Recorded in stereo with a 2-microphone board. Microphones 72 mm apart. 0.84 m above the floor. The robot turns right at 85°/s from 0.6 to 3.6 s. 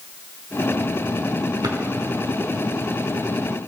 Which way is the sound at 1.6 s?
70° right (ahead or behind).